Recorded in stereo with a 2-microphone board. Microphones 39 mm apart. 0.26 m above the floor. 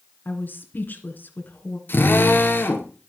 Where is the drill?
70° left (ahead or behind), 2.5 m.